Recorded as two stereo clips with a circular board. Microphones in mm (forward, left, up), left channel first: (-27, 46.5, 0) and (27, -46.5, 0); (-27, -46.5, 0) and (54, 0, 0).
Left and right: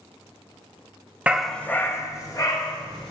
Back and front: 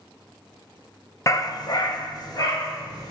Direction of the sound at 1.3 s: 125° right.